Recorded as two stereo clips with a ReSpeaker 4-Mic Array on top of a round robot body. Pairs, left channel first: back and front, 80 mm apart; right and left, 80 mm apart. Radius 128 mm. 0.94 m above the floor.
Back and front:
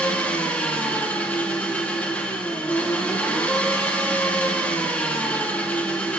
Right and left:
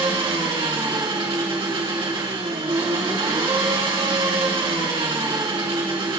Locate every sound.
0.0 s an engine running: 105° left, 2 m